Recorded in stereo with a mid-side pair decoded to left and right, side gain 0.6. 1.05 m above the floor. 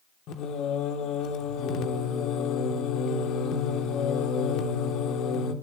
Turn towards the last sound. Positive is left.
turn(degrees=60)